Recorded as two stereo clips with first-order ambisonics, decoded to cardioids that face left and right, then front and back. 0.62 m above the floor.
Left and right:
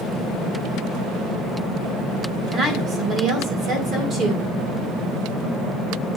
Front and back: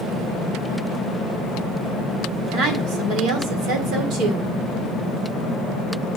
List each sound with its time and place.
2.5 s a woman speaking: 145° right, 2 m